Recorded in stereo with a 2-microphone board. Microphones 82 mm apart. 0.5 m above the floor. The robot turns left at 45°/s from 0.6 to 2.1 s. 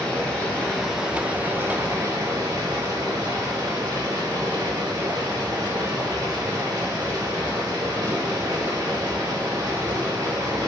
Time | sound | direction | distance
0.0 | running water | 15° left | 0.8 m